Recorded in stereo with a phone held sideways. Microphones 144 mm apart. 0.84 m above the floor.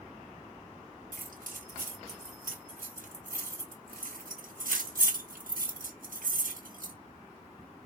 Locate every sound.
1.1 s keys jangling: 85° right, 1.4 m